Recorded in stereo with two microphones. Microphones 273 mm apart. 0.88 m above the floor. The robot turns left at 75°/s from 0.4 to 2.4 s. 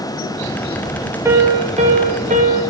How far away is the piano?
About 1.0 m.